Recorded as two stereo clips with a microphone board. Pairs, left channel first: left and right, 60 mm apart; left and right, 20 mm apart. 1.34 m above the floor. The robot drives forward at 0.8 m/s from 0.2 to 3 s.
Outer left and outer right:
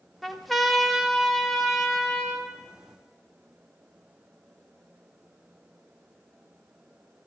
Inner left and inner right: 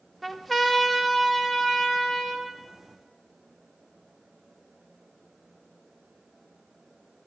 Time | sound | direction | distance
0.2 | a trumpet | 5° left (ahead or behind) | 0.7 m